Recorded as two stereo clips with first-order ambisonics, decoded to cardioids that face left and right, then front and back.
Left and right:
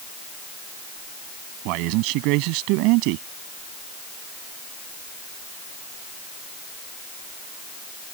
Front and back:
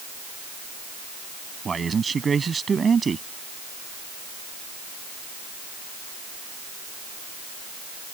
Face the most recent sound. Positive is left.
turn(degrees=-105)